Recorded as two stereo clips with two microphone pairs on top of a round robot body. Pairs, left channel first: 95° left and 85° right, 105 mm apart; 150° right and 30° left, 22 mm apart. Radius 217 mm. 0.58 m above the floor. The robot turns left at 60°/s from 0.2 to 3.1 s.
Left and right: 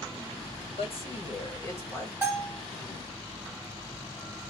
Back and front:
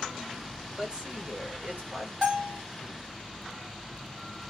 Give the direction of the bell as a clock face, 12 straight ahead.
12 o'clock.